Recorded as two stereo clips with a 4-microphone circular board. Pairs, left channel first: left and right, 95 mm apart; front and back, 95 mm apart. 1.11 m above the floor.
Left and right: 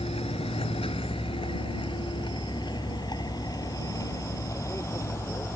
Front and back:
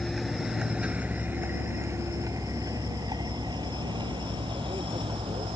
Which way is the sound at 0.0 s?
90° left.